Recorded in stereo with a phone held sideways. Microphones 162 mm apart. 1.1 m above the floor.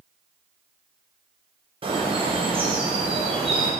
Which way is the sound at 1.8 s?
35° right (ahead or behind).